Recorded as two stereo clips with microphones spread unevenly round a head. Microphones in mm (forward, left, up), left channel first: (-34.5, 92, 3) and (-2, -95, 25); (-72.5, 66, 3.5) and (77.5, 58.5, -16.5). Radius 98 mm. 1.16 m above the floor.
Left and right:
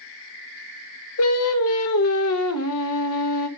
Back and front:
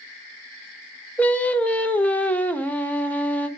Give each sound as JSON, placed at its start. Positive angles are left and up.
{"t": 1.2, "sound": "singing", "azimuth_deg": 95, "distance_m": 1.1}